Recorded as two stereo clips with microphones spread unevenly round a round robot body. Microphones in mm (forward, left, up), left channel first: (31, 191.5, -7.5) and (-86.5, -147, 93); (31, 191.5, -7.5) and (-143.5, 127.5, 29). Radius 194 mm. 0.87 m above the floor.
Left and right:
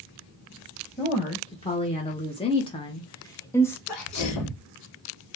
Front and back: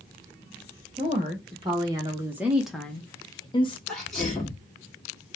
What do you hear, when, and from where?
1.0 s a woman speaking: 135° left, 1.3 m; by 3.8 s 10° left, 0.8 m
3.9 s a sneeze: 105° left, 2 m